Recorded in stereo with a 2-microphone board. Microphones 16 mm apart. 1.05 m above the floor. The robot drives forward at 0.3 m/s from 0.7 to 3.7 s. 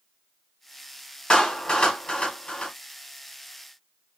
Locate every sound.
1.3 s a clap: 60° left (ahead or behind), 2.5 m; by 2.7 s 70° left (ahead or behind), 2.5 m